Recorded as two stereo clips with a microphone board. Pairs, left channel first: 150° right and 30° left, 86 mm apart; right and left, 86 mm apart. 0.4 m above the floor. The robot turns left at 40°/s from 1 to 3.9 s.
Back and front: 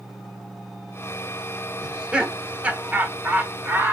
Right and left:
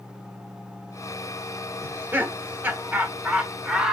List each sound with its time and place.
1.8 s laughter: 100° left, 1.0 m; by 3.9 s 15° left, 1.0 m